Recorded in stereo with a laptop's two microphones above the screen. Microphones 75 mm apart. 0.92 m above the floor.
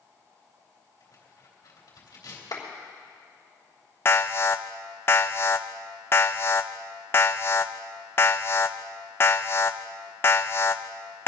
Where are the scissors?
I don't hear scissors.